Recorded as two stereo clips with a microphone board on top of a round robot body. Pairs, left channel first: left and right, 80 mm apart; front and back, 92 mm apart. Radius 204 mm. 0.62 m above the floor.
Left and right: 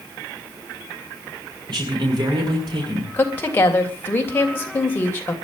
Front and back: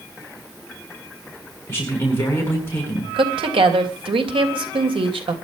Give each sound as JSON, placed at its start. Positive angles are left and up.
{"t": 1.7, "sound": "a man speaking", "azimuth_deg": -65, "distance_m": 8.0}
{"t": 3.1, "sound": "a woman speaking", "azimuth_deg": 155, "distance_m": 3.0}